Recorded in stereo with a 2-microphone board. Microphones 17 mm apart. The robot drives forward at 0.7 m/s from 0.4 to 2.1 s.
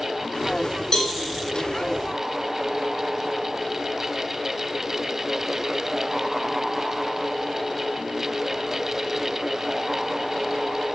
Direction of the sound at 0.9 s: 30° left (ahead or behind).